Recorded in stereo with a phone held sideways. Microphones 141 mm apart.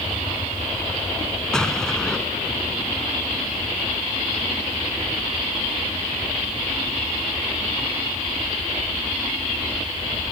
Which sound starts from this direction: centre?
An explosion, at 1.5 s.